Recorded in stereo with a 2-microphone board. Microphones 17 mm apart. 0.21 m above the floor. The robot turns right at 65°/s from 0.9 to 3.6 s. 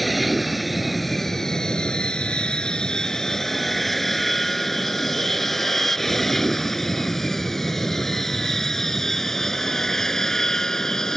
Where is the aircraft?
5° left (ahead or behind); by 11.2 s 20° left (ahead or behind).